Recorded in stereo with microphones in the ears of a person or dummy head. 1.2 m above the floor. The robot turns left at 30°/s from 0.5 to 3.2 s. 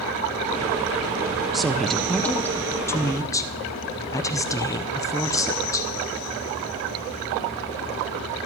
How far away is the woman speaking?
About 0.5 m.